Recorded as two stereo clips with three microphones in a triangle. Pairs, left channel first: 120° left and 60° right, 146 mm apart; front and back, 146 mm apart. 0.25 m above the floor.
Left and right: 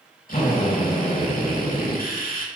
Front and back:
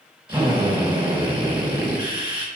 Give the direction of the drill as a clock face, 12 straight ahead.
8 o'clock.